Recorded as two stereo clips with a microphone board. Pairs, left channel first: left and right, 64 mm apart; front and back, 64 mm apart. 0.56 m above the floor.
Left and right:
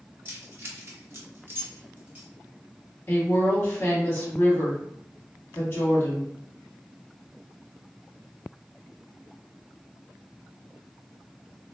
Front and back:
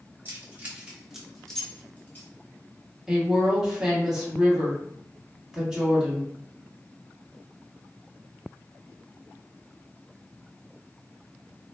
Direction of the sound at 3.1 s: 105° left.